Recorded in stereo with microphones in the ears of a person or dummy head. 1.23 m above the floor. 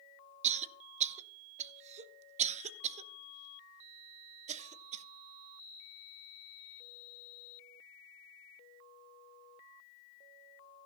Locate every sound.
0.4 s a cough: 35° right (ahead or behind), 0.7 m